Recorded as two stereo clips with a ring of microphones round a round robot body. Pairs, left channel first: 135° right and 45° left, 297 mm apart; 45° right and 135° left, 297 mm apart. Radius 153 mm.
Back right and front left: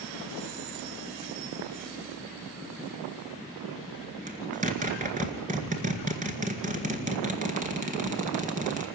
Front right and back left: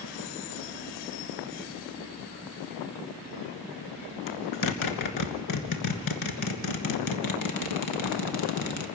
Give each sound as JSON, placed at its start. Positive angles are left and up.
{"t": 4.3, "sound": "a zipper", "azimuth_deg": -20, "distance_m": 1.7}